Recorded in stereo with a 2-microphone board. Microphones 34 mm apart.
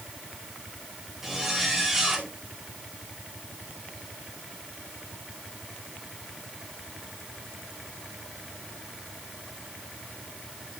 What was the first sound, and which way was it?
A zipper, 5° right (ahead or behind).